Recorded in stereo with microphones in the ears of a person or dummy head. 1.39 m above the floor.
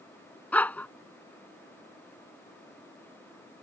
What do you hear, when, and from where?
0.5 s a dog barking: 5° left (ahead or behind)